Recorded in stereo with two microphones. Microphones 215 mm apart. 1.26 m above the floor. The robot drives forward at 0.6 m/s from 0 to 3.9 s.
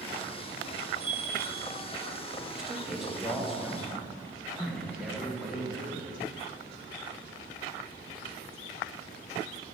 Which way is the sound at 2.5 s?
Centre (ahead or behind).